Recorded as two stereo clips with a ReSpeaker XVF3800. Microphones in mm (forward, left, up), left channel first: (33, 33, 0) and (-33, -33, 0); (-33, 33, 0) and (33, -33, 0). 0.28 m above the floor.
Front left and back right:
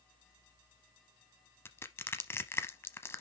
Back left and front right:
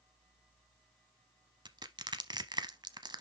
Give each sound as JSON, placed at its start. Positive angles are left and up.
{"t": 1.6, "sound": "crushing", "azimuth_deg": -15, "distance_m": 0.7}